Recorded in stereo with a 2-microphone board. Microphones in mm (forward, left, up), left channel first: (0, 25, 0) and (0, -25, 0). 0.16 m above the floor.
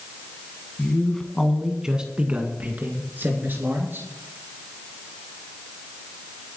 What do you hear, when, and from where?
0.8 s a man speaking: 20° left (ahead or behind), 1.7 m; by 4.1 s 55° right (ahead or behind), 3 m